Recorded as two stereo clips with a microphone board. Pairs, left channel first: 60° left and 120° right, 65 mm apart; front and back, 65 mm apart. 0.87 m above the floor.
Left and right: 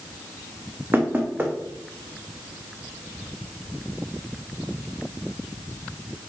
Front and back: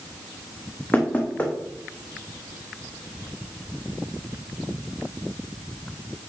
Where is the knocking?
65° right, 1.3 m.